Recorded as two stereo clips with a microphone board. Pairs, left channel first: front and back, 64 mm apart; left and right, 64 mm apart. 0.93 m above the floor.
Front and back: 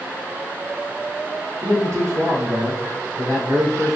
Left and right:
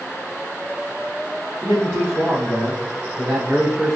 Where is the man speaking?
175° right, 1.5 m; by 4.0 s 165° left, 2.5 m.